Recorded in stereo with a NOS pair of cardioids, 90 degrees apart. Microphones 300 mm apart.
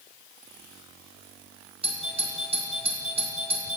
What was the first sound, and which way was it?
A doorbell, 20° right.